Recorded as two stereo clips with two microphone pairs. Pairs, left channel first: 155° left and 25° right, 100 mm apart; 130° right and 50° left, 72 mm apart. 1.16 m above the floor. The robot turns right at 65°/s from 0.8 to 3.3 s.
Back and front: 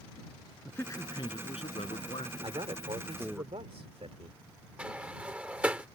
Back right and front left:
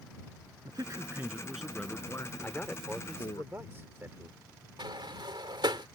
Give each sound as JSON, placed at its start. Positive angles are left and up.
{"t": 0.7, "sound": "a man speaking", "azimuth_deg": 90}
{"t": 2.4, "sound": "a man speaking", "azimuth_deg": -65}
{"t": 4.8, "sound": "a sliding door", "azimuth_deg": 55}